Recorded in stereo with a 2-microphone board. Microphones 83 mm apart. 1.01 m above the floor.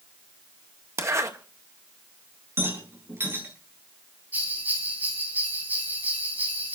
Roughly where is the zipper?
Right.